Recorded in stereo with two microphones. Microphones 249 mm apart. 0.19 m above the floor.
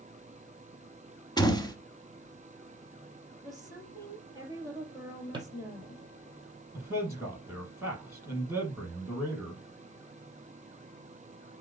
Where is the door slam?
15° left (ahead or behind), 1.0 m.